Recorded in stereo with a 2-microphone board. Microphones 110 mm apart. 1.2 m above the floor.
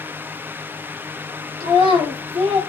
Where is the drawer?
I don't hear a drawer.